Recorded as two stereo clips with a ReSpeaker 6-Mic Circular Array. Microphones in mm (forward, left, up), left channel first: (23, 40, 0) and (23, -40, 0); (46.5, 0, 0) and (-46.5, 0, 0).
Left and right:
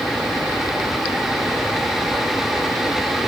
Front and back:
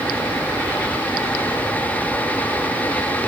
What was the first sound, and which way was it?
Only background noise.